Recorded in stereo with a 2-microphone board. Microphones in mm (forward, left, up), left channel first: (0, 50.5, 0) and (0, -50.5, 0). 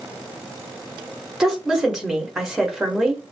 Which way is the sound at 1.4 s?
5° right (ahead or behind).